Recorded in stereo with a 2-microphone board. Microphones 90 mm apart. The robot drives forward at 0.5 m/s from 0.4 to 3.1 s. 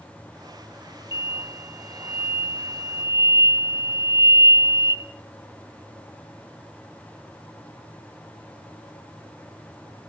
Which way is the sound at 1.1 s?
55° left (ahead or behind).